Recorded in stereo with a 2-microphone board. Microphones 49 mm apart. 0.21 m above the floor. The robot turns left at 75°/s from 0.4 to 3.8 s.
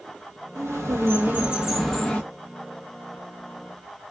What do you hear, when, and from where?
0.6 s a bird: 80° right, 1.1 m; by 2.2 s 155° left, 1.1 m